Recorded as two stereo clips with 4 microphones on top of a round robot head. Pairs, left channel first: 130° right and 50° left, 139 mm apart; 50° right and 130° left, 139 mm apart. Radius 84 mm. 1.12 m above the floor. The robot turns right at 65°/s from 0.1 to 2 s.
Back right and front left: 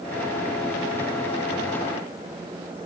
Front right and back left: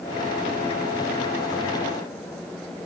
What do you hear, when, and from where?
Only background noise.